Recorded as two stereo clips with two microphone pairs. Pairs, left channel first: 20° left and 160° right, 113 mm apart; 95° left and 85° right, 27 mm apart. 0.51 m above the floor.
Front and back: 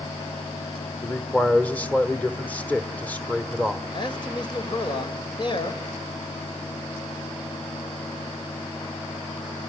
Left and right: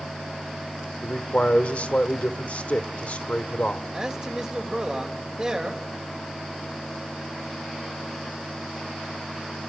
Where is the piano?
I don't hear a piano.